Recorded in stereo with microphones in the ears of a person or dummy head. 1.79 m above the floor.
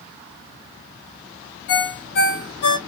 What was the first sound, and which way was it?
A ringtone, 50° left (ahead or behind).